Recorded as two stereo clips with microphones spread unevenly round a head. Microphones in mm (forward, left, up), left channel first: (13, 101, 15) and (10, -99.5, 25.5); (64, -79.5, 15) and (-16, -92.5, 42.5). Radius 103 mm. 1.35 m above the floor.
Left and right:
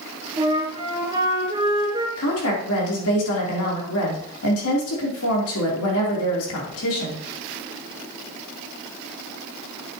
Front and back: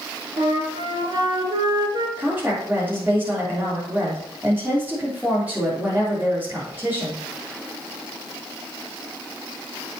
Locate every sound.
0.4 s a flute: 160° right, 4 m
2.2 s a woman speaking: 105° left, 3.5 m